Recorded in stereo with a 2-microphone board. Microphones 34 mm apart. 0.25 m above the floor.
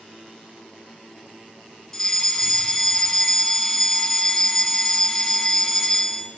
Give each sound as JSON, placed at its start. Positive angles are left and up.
{"t": 1.9, "sound": "a fire alarm", "side_deg": 10, "distance_m": 3.0}